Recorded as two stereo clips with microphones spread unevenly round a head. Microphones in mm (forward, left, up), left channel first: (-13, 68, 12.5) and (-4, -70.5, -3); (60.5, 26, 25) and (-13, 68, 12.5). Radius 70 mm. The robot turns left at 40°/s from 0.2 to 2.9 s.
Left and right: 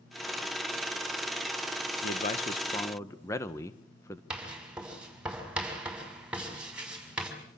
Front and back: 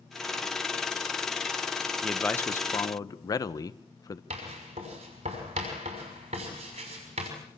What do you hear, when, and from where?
2.0 s a man speaking: 55° left, 1.6 m; by 4.2 s 20° left, 1.6 m
4.3 s writing: 170° right, 6 m